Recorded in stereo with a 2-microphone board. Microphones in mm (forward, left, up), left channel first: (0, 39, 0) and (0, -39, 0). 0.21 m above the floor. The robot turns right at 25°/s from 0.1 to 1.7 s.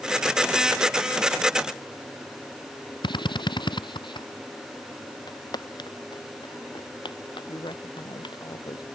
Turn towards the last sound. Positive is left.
turn(degrees=65)  # may be behind; listen again after turning